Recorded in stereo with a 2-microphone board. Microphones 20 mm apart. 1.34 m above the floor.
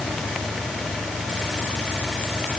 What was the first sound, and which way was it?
Only background noise.